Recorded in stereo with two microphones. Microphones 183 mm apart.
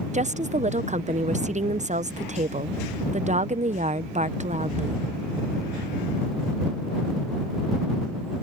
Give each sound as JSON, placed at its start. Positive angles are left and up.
{"t": 0.1, "sound": "a woman speaking", "side_deg": -40}